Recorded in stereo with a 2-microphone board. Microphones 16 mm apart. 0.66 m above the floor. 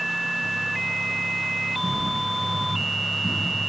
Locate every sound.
1.8 s footsteps: 15° left (ahead or behind), 6 m; by 3.4 s 30° left (ahead or behind), 6.5 m